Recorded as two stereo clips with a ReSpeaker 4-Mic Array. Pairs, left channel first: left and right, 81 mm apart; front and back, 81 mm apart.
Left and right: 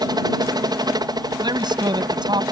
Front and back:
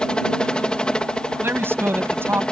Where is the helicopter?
80° right.